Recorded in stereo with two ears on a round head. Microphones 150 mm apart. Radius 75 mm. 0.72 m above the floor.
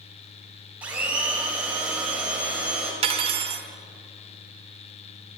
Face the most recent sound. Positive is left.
turn(degrees=-35)  # may be behind; listen again after turning